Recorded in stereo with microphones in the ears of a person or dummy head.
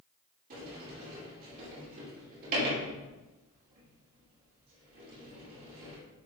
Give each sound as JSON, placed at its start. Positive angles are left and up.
{"t": 0.5, "sound": "a sliding door", "side_deg": -50, "distance_m": 3.0}